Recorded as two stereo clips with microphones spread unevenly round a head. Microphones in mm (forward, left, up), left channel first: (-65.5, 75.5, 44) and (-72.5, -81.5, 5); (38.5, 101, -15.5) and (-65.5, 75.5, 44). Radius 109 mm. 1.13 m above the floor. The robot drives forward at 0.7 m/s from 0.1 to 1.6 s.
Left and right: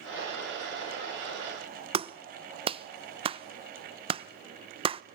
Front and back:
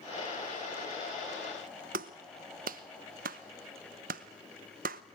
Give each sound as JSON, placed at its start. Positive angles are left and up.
{"t": 1.9, "sound": "a clap", "azimuth_deg": -140, "distance_m": 0.8}